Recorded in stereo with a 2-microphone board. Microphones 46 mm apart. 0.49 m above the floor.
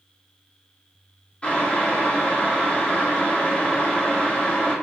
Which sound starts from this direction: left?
Boiling, at 1.4 s.